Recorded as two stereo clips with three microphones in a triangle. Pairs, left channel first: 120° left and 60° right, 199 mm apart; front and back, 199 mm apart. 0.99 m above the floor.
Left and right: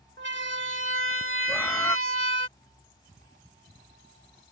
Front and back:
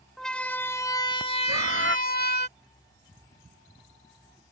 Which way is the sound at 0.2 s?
90° right.